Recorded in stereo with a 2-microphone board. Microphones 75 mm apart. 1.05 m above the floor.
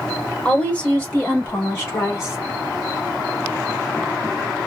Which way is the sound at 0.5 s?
20° left (ahead or behind).